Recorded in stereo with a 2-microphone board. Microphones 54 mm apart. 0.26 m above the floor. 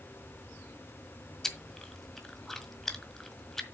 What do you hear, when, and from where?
1.4 s chewing: 5° left (ahead or behind), 1.6 m